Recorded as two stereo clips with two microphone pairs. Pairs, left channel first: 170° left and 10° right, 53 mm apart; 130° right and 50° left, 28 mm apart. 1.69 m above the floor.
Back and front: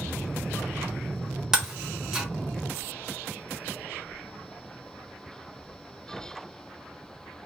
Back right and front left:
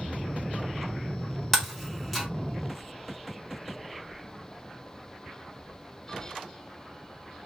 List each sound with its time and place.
1.5 s breaking glass: 70° right, 0.9 m